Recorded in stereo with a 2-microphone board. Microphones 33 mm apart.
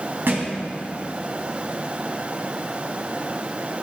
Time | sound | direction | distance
0.3 | a thud | 85° right | 2.5 m